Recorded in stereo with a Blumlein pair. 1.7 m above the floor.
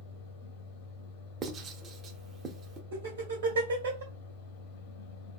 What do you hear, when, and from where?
0.0 s a fan: 55° left, 0.8 m
1.4 s writing: 30° right, 0.7 m
2.9 s laughter: 65° right, 1.4 m